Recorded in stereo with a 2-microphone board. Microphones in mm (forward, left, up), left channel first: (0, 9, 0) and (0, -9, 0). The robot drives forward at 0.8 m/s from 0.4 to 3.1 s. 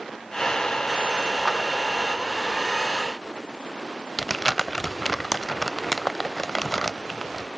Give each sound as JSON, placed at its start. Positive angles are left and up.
{"t": 1.4, "sound": "a clap", "side_deg": 25, "distance_m": 4.5}
{"t": 4.2, "sound": "crumpling", "side_deg": 30, "distance_m": 0.5}